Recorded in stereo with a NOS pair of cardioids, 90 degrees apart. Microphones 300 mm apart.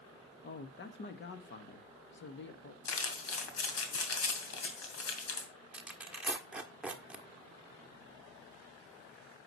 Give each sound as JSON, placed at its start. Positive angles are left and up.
{"t": 0.4, "sound": "a man speaking", "azimuth_deg": 40, "distance_m": 1.7}
{"t": 2.9, "sound": "crumpling", "azimuth_deg": 60, "distance_m": 2.5}
{"t": 5.7, "sound": "tearing paper", "azimuth_deg": -5, "distance_m": 1.4}